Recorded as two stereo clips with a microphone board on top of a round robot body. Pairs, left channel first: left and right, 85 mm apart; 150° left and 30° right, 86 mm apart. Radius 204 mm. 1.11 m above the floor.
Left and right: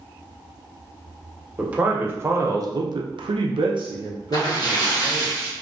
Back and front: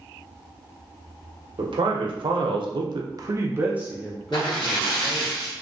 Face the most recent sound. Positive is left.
turn(degrees=125)